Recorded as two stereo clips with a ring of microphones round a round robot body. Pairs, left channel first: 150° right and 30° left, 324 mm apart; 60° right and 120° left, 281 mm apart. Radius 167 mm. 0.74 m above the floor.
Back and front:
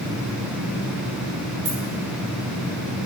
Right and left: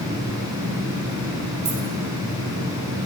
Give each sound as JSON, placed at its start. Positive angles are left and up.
{"t": 1.6, "sound": "keys jangling", "azimuth_deg": 100, "distance_m": 6.5}